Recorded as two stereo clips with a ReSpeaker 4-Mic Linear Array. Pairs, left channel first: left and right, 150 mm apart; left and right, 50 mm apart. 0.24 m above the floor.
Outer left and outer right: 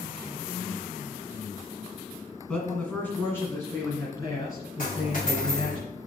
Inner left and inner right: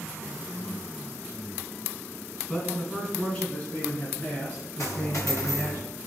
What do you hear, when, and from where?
2.5 s a man speaking: 5° left (ahead or behind), 1.8 m; by 5.8 s 30° left (ahead or behind), 3.5 m
4.8 s a dropped coin: 60° left (ahead or behind), 3 m